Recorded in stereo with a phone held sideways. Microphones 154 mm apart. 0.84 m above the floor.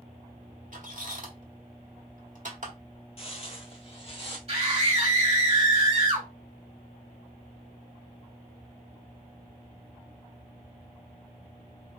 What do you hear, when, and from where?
0.7 s a squeak: 55° right (ahead or behind), 1.3 m
3.2 s footsteps: 40° left (ahead or behind), 1.1 m; by 4.4 s 35° left (ahead or behind), 1.4 m
4.5 s a scream: 35° right (ahead or behind), 1.7 m